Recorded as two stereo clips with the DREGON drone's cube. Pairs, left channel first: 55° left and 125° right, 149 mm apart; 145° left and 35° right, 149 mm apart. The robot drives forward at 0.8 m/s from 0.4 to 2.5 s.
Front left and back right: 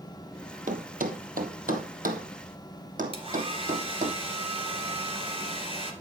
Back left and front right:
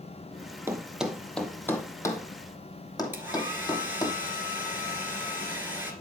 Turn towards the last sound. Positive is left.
turn(degrees=-105)